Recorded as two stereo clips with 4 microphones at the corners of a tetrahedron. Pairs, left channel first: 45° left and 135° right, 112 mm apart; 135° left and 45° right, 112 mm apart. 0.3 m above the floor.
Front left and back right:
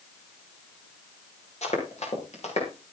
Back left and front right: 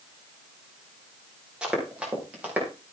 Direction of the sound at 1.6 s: 35° left.